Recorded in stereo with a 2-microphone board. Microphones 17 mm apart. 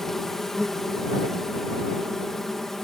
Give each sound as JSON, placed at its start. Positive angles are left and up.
{"t": 0.0, "sound": "an insect", "side_deg": 25}